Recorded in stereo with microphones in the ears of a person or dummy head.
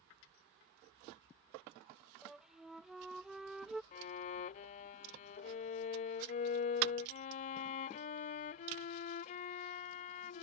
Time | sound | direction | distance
2.2 | a flute | centre (ahead or behind) | ?
3.9 | a violin | 40° left (ahead or behind) | ?